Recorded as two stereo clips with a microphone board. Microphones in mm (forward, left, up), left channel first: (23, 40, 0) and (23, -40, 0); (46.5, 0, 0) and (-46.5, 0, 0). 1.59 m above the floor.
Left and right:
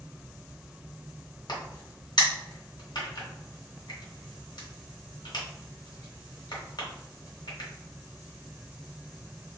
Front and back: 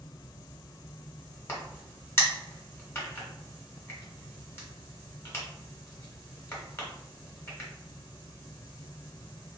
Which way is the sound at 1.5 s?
65° left.